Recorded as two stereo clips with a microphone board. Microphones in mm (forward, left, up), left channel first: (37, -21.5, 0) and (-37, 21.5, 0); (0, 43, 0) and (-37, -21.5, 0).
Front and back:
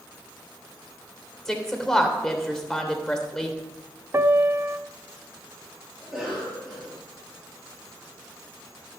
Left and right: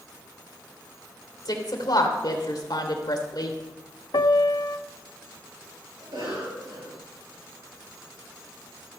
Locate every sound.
1.4 s a woman speaking: 55° left, 2.5 m
4.1 s a piano: 90° left, 0.5 m
6.0 s a cough: 120° right, 9.5 m